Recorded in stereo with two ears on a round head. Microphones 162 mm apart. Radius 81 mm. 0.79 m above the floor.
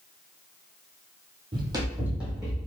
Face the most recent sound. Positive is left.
turn(degrees=0)  # may be behind; listen again after turning